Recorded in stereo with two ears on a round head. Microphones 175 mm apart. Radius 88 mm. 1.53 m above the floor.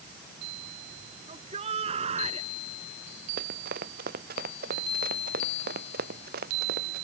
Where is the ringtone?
I don't hear a ringtone.